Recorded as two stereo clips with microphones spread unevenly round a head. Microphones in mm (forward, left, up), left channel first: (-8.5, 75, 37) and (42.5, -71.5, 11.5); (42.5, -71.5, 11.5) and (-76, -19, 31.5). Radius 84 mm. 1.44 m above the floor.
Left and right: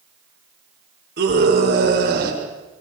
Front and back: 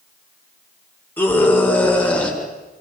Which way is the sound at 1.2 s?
100° right.